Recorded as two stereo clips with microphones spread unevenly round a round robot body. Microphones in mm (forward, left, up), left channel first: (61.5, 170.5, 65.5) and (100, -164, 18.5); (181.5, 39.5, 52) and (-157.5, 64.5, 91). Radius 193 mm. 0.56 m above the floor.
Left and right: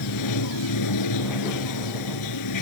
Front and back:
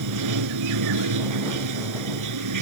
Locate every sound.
0.0 s running water: 140° left